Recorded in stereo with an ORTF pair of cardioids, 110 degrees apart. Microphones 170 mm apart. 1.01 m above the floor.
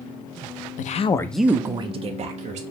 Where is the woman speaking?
60° left, 0.6 m; by 2.6 s 50° right, 1.4 m.